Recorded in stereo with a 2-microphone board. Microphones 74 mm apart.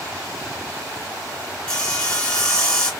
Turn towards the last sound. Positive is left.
turn(degrees=15)  # may be behind; listen again after turning